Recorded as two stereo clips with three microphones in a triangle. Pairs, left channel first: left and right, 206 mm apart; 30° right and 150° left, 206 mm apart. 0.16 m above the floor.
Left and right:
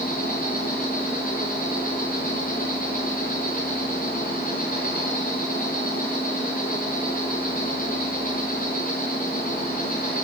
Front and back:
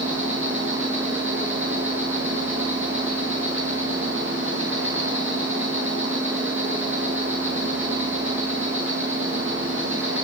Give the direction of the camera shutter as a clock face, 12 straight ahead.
I don't hear a camera shutter.